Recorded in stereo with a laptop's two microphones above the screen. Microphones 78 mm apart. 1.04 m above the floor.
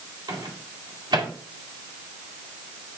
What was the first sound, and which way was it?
A microwave, 65° right (ahead or behind).